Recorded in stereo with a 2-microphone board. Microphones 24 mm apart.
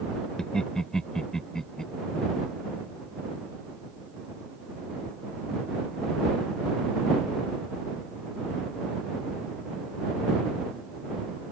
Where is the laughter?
30° left (ahead or behind).